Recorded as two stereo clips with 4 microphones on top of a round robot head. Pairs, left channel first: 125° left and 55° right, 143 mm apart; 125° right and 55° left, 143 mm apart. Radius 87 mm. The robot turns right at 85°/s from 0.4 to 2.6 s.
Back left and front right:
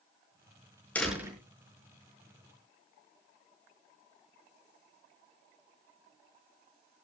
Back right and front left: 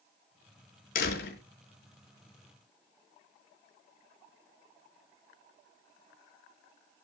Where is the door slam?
155° right, 6 m; by 1.4 s 120° right, 6 m.